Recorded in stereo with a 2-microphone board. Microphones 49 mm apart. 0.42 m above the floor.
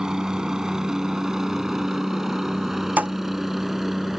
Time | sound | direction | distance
0.0 | a helicopter | 10° right (ahead or behind) | ?
3.0 | a thud | 30° right (ahead or behind) | ?